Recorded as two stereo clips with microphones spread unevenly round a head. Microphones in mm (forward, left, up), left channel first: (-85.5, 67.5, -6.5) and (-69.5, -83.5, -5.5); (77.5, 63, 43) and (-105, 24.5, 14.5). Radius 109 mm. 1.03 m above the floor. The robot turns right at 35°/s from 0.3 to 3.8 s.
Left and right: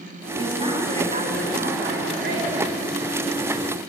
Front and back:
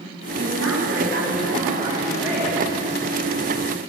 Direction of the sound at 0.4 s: 145° right.